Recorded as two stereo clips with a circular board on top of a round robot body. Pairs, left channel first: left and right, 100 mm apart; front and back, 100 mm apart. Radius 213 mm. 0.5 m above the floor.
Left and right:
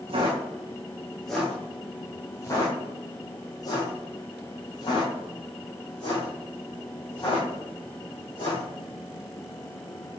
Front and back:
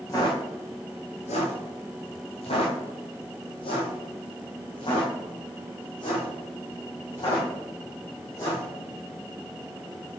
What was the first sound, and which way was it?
Footsteps, 60° right.